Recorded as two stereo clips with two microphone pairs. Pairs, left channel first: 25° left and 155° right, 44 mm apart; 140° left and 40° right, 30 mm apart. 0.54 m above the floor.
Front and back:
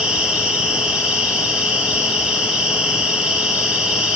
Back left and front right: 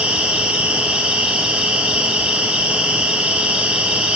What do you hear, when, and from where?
0.0 s an insect: 85° right, 3 m